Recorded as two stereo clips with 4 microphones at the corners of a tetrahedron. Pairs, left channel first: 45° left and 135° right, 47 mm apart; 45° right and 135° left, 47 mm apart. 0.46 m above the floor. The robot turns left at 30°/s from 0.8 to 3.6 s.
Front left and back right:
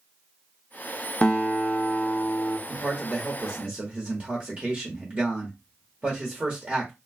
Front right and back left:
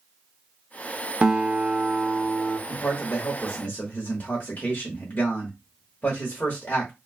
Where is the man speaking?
55° right, 1.2 m; by 6.9 s 80° right, 1.2 m.